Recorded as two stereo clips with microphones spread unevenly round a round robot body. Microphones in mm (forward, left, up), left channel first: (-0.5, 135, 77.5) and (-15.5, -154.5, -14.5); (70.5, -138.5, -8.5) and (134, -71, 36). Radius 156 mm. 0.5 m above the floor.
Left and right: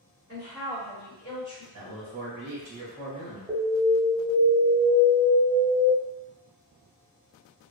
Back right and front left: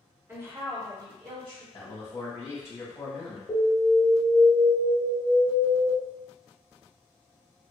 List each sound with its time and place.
0.3 s a woman speaking: 40° right, 1.6 m; by 1.6 s 5° left, 1.7 m
1.7 s a man speaking: 75° right, 1.4 m
3.5 s an alarm: 170° right, 0.7 m